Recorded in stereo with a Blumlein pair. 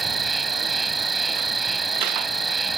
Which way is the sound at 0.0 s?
10° right.